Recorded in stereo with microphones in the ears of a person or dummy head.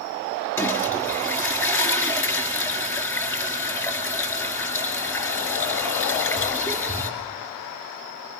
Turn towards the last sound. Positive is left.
turn(degrees=15)  # may be behind; listen again after turning